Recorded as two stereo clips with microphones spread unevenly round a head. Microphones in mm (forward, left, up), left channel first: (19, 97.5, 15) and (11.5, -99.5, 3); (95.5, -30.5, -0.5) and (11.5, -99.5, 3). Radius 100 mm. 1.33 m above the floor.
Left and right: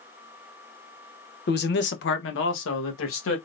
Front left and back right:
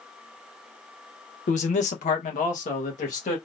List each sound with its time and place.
1.5 s a man speaking: 50° left, 0.7 m; by 3.4 s 70° left, 1.6 m